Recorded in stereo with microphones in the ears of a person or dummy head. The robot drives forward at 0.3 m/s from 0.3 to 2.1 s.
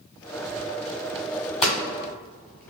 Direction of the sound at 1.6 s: 10° left (ahead or behind).